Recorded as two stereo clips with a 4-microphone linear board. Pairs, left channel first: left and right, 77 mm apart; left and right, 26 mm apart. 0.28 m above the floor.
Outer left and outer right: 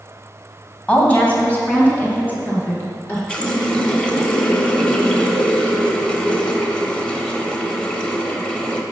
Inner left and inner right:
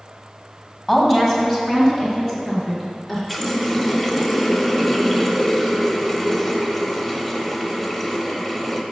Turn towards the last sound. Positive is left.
turn(degrees=15)  # may be behind; listen again after turning